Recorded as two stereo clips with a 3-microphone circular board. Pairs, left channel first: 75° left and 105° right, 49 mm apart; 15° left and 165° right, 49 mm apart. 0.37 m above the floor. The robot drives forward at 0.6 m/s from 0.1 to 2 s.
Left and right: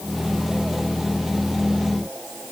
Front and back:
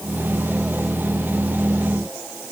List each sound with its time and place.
Only background noise.